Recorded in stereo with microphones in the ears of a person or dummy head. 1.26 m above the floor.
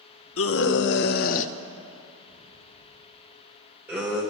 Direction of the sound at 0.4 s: 75° left (ahead or behind).